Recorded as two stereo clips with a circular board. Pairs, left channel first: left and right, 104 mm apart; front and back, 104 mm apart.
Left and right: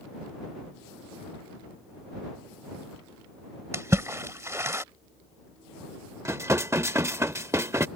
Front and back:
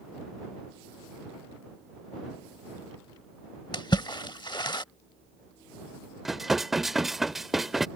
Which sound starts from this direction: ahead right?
A splash, at 3.7 s.